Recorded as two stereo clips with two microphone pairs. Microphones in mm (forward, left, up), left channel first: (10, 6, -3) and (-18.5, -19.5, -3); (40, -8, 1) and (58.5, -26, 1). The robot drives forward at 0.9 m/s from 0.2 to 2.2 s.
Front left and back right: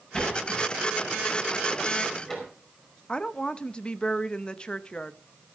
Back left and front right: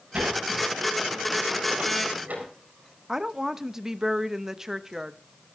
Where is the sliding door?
25° right, 6 m; by 2.5 s 35° right, 4.5 m.